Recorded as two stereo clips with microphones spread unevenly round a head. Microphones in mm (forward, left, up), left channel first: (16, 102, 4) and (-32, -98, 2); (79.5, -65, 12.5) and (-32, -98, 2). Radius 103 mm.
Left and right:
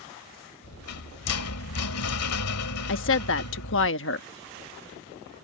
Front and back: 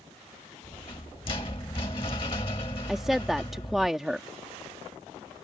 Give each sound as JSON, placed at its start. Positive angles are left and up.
{"t": 0.6, "sound": "a rattle", "azimuth_deg": 80}
{"t": 2.9, "sound": "a woman speaking", "azimuth_deg": 110}